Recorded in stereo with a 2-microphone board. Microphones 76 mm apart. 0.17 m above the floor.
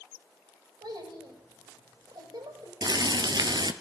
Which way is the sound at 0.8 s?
70° right (ahead or behind).